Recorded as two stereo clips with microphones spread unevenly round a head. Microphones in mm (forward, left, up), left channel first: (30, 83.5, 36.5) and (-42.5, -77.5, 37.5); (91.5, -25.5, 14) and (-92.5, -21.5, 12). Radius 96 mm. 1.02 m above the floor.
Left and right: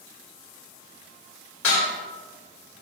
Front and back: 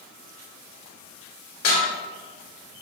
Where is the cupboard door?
No cupboard door in this recording.